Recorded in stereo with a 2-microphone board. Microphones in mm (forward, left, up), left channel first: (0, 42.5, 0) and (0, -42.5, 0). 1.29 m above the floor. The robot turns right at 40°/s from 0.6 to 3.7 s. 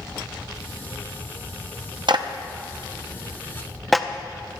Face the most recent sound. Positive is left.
turn(degrees=0)  # may be behind; listen again after turning